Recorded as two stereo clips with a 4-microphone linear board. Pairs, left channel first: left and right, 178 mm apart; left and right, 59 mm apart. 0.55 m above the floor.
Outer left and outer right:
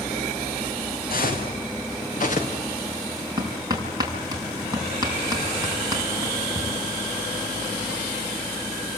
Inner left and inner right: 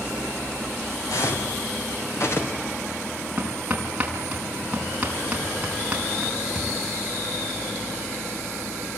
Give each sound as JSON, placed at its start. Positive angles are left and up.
{"t": 1.1, "sound": "footsteps", "side_deg": 60, "distance_m": 4.0}
{"t": 3.4, "sound": "hammering", "side_deg": -25, "distance_m": 6.0}